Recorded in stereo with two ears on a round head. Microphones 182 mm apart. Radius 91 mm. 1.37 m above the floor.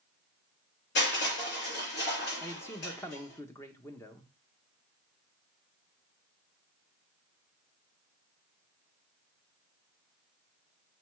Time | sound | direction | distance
0.9 | crushing | 55° left (ahead or behind) | 5 m
2.4 | a man speaking | 15° left (ahead or behind) | 1.0 m